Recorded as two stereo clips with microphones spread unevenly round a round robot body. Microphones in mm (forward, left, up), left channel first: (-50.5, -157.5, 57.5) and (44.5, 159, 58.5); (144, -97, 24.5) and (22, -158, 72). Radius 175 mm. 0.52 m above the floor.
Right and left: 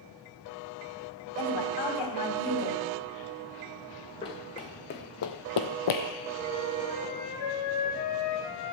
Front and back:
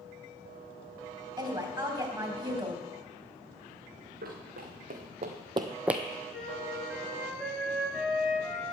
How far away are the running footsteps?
About 2.5 m.